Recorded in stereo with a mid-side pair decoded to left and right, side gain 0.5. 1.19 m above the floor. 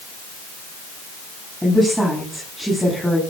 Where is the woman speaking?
5° right, 10 m.